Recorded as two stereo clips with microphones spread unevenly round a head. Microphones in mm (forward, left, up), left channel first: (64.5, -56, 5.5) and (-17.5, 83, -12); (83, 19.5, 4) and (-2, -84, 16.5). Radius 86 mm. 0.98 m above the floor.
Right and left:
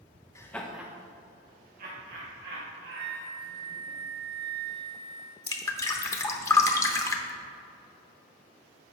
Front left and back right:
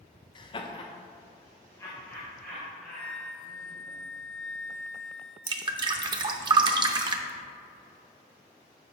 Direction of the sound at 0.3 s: 15° left.